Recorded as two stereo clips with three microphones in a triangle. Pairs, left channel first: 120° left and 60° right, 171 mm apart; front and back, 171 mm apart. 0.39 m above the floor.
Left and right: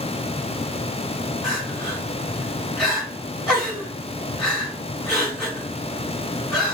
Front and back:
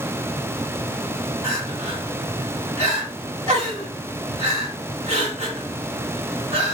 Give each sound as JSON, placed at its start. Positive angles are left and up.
{"t": 1.4, "sound": "crying", "azimuth_deg": -160, "distance_m": 1.7}